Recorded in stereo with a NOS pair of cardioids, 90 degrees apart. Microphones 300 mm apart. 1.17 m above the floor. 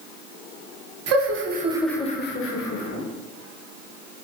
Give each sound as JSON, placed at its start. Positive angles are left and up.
{"t": 1.1, "sound": "laughter", "azimuth_deg": -55, "distance_m": 1.0}